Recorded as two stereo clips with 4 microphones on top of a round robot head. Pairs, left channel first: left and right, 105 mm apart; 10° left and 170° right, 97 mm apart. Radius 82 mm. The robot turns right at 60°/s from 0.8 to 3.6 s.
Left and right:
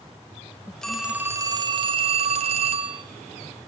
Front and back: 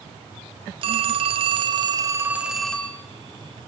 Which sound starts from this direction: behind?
A phone ringing, at 0.8 s.